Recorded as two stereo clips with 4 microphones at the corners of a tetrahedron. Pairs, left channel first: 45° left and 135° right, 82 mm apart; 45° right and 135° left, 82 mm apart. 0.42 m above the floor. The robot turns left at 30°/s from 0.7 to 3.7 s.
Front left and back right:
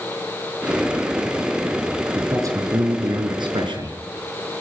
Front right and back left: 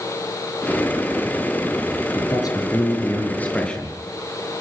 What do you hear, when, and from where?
2.1 s a man speaking: 80° right, 5 m; by 4.0 s 125° right, 5 m